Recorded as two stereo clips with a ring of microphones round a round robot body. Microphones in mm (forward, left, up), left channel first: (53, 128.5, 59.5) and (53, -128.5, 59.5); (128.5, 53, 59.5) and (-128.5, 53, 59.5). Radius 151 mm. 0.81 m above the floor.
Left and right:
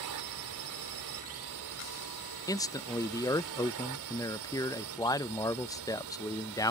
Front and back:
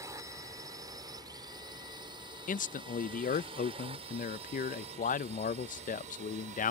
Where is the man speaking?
25° left.